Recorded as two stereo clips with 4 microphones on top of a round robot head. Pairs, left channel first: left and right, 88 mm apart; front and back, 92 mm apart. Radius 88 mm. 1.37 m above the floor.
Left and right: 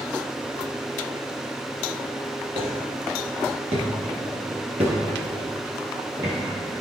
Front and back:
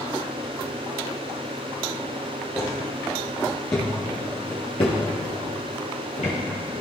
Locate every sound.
2.5 s footsteps: 90° right, 3 m; by 6.4 s 15° right, 2 m